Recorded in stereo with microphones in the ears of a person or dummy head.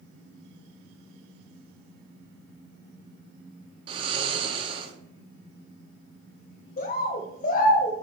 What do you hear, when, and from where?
3.9 s snoring: 30° right (ahead or behind), 0.7 m
6.8 s a bird: 40° left (ahead or behind), 0.7 m